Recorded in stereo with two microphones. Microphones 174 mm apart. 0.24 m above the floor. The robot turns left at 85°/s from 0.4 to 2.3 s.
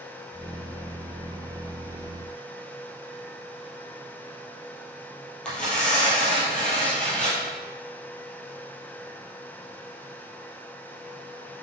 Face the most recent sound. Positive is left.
turn(degrees=5)  # may be behind; listen again after turning